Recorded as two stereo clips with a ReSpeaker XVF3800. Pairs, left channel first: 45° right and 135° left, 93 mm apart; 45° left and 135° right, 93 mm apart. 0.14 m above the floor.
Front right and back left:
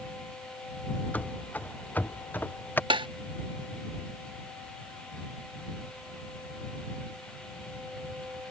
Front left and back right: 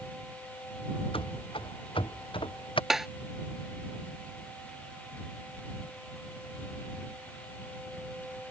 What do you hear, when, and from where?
1.1 s running footsteps: 30° left; by 2.8 s 25° left
2.9 s tapping: 140° left